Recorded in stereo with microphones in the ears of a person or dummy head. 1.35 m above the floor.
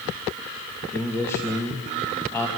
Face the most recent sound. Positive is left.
turn(degrees=15)  # may be behind; listen again after turning